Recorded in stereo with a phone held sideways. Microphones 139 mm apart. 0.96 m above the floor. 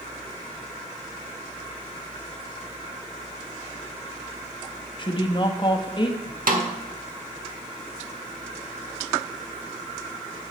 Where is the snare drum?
80° right, 1.4 m.